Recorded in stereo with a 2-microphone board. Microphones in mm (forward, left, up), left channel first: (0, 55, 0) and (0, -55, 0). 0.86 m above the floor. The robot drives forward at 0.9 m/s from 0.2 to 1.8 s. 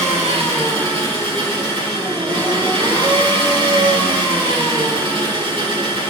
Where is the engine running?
75° right (ahead or behind), 3 m; by 6.1 s 55° right (ahead or behind), 4 m.